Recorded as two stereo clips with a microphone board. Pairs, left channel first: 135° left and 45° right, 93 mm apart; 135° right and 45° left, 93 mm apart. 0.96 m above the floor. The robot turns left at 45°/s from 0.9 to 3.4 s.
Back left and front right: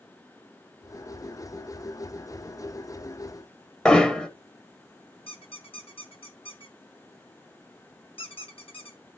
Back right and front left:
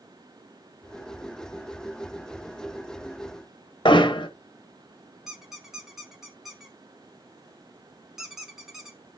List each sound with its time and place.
3.9 s hammering: 145° right, 1.2 m
5.3 s a squeak: 130° left, 1.9 m